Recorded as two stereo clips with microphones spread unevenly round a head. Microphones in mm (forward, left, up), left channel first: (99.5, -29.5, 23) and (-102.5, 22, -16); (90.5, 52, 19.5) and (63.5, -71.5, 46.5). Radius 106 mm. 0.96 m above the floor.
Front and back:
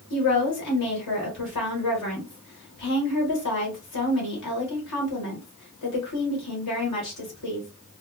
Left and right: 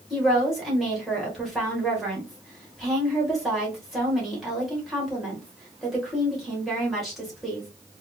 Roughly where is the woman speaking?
Ahead.